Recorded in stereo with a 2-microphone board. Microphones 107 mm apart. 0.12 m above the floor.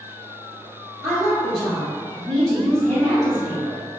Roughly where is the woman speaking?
Centre.